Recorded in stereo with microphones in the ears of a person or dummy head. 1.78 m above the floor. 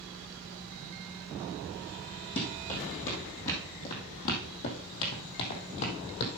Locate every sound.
2.4 s running footsteps: 25° left (ahead or behind), 3 m; by 6.3 s 50° left (ahead or behind), 2.5 m